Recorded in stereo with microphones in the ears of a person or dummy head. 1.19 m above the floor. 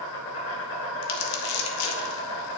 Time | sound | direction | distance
0.0 | an insect | 70° left (ahead or behind) | 4 m
1.0 | crumpling | 75° left (ahead or behind) | 1.9 m